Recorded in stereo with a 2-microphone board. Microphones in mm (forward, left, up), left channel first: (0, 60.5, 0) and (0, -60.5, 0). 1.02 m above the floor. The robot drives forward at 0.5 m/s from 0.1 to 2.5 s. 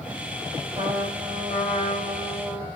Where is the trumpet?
45° right (ahead or behind), 2.0 m; by 2.7 s 35° right (ahead or behind), 2.5 m.